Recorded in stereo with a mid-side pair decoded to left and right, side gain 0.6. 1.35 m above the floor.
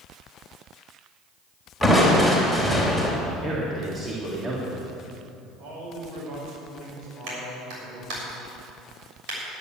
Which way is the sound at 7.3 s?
70° right.